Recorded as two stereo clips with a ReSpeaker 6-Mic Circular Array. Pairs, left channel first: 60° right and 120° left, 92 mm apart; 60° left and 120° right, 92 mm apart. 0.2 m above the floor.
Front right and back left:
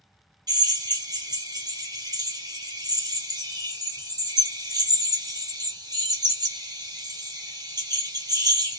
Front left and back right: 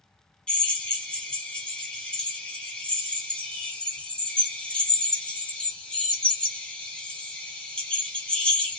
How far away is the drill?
About 1.1 m.